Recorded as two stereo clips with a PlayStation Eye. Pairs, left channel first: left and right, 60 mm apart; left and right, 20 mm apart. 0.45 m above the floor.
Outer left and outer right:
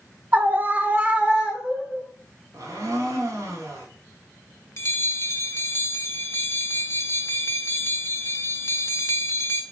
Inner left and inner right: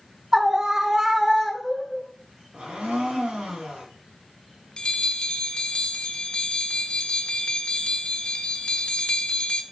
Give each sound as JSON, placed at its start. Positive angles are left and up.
{"t": 0.3, "sound": "a scream", "side_deg": -30, "distance_m": 1.2}
{"t": 2.5, "sound": "a blender", "side_deg": -75, "distance_m": 3.5}
{"t": 4.8, "sound": "a bell", "side_deg": 45, "distance_m": 1.0}